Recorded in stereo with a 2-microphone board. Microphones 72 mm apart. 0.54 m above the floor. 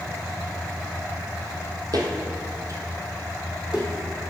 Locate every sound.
1.9 s footsteps: 65° right (ahead or behind), 1.2 m; by 3.9 s 10° right (ahead or behind), 1.6 m